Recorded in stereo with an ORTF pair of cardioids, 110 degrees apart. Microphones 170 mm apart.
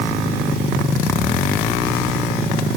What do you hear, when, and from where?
Only background noise.